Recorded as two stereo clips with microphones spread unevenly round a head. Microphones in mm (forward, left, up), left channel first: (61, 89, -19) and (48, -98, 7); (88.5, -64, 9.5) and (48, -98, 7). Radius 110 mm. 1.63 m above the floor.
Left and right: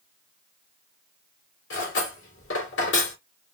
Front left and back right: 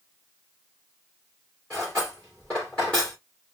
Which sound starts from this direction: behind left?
Cutlery clinking, at 1.7 s.